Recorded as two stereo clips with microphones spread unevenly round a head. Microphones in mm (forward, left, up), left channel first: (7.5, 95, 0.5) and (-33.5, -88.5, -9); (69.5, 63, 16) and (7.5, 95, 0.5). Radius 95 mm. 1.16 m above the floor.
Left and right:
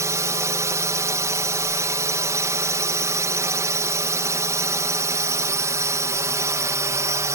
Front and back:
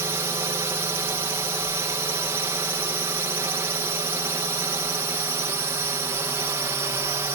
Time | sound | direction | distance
0.0 | a drone | 170° right | ?